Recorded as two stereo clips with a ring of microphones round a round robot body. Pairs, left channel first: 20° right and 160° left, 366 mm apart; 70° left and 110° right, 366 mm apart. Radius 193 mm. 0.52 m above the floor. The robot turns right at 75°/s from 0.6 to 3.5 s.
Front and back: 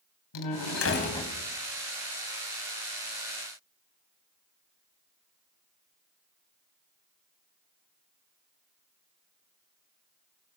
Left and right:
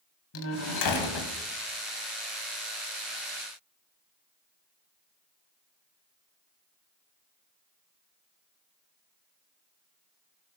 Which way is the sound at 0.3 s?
15° left.